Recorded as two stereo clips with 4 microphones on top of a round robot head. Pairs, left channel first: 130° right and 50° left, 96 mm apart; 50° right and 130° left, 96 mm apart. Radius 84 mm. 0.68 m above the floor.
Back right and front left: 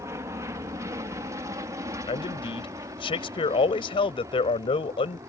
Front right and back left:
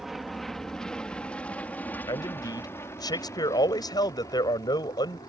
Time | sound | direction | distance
0.0 | an aircraft | 45° left | ?
2.1 | a man speaking | 100° right | ?